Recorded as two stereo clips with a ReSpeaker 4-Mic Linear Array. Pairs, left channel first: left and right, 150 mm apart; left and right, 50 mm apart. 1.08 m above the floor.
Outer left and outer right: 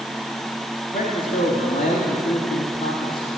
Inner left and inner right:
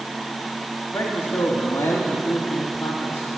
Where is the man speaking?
75° left (ahead or behind), 1.8 m.